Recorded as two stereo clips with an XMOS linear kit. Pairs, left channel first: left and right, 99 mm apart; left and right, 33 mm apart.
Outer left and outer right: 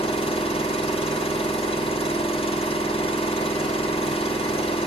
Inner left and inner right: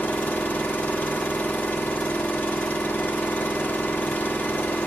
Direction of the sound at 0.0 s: 70° left (ahead or behind).